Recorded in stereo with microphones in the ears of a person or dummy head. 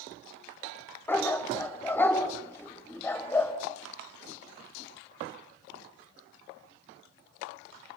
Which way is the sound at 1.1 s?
10° left (ahead or behind).